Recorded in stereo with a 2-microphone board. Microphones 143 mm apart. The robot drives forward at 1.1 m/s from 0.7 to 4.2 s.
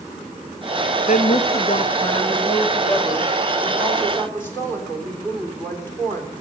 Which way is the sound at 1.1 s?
65° left (ahead or behind).